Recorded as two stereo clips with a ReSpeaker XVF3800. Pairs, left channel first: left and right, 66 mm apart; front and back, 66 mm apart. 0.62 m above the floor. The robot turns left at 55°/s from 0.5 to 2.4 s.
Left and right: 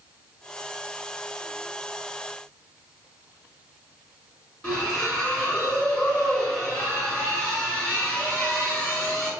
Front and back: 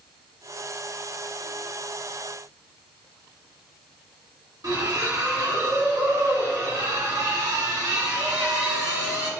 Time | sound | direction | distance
4.6 | a splash | 165° left | 1.7 m